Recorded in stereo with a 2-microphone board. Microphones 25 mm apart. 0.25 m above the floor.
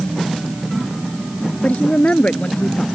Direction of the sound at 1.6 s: 60° left (ahead or behind).